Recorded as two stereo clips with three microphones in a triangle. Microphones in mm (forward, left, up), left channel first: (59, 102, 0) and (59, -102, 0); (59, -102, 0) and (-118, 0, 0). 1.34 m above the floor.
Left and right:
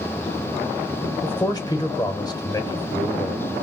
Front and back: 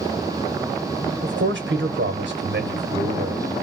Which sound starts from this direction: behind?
A man speaking, at 1.2 s.